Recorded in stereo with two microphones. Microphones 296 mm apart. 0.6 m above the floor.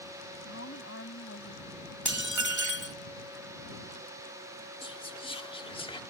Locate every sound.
0.5 s a woman speaking: 50° left (ahead or behind)
2.0 s dishes clattering: 80° right
4.8 s whispering: 15° left (ahead or behind)